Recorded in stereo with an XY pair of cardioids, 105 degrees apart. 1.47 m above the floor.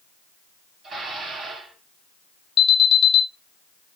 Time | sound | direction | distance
0.8 | dishes clattering | 55° right | 1.5 m
2.6 | an alarm | 55° left | 0.8 m